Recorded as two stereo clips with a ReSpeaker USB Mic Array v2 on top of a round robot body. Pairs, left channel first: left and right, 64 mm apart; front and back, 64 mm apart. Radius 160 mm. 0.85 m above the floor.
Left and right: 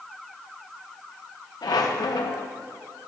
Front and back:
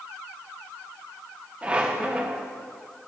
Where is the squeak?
105° left, 0.5 m.